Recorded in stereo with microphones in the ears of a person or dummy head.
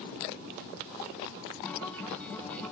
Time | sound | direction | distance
1.6 | a guitar | 10° left (ahead or behind) | 1.4 m